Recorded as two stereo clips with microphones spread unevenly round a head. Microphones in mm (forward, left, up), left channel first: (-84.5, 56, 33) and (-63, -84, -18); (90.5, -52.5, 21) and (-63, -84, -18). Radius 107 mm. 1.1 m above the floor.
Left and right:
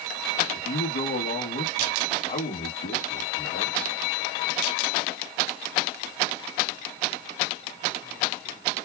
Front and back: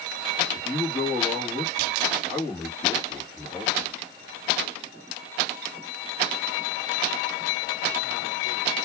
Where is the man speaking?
105° left, 1.4 m.